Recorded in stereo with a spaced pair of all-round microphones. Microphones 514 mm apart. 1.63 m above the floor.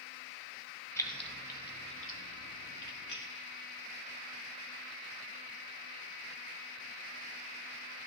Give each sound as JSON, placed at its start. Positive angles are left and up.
{"t": 1.0, "sound": "keys jangling", "side_deg": 5, "distance_m": 1.1}